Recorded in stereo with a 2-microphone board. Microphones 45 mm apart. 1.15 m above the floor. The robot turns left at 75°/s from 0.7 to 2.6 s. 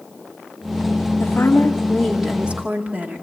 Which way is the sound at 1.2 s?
70° left.